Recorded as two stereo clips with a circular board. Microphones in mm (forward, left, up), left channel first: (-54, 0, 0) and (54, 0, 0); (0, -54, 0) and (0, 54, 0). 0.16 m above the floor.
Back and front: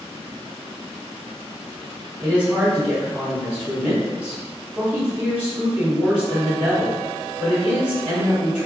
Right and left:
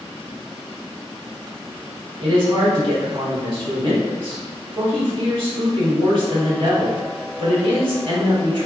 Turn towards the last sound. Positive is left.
turn(degrees=75)